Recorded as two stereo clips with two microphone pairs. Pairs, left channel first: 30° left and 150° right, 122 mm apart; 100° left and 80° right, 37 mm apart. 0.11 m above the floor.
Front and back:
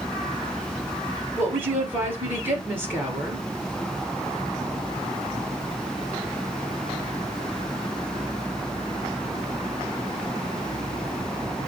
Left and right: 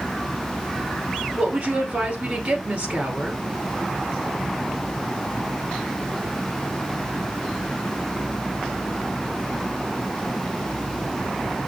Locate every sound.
1.4 s a woman speaking: 85° right, 2 m